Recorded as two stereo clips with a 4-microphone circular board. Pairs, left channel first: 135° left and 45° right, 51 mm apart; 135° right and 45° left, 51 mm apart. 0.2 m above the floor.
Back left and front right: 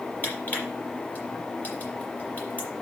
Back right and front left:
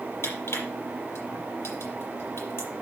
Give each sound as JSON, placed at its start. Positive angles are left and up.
{"t": 0.2, "sound": "crushing", "azimuth_deg": -165, "distance_m": 5.5}